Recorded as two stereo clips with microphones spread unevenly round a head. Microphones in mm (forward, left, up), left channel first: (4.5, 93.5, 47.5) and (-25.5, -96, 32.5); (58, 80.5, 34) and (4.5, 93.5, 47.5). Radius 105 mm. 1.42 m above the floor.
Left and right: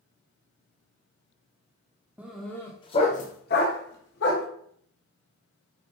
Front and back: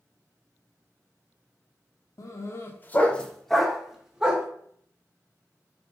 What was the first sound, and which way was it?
A dog barking, 15° right.